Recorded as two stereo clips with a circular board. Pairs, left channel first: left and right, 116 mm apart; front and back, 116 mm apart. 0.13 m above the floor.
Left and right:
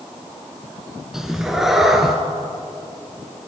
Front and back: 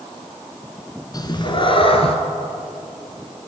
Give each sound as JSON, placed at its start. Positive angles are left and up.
{"t": 1.1, "sound": "a cat meowing", "azimuth_deg": -5, "distance_m": 0.9}